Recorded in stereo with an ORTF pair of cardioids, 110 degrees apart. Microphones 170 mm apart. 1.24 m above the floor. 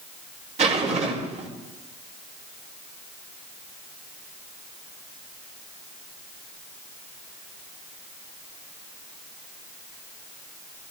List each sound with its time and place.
0.6 s a zipper: 40° right, 4 m